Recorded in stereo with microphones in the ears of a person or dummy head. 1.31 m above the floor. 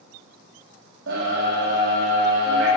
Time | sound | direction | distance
1.1 | a scream | 65° right (ahead or behind) | 1.7 m